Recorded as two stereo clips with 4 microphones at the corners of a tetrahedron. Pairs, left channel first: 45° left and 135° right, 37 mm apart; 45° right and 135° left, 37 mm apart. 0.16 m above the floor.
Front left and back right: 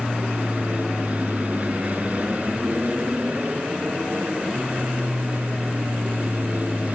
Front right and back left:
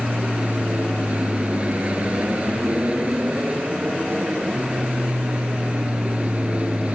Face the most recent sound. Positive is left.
turn(degrees=-175)